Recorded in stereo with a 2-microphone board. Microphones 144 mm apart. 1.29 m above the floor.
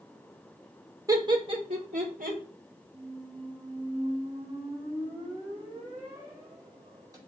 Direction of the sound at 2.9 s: 25° right (ahead or behind).